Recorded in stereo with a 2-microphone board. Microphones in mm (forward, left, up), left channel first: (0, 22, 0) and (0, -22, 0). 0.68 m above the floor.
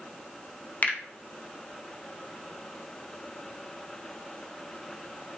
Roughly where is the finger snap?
Left.